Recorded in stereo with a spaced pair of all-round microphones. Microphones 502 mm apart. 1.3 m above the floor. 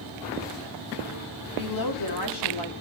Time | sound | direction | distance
1.6 | a woman speaking | 40° left (ahead or behind) | 3.5 m